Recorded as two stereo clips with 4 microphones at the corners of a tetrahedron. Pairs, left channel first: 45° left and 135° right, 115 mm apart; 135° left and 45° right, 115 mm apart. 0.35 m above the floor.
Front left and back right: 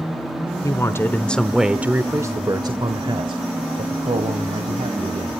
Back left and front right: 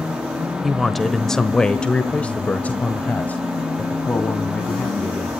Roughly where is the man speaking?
Ahead left.